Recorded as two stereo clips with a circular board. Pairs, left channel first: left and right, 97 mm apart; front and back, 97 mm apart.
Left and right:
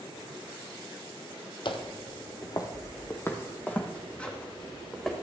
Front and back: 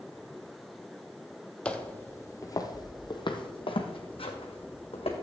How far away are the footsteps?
About 0.9 m.